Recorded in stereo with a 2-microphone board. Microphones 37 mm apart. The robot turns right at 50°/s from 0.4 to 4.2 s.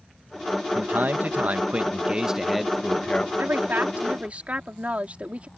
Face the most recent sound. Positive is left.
turn(degrees=-35)